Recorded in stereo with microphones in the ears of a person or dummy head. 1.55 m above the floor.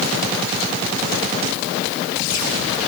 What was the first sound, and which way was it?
Only background noise.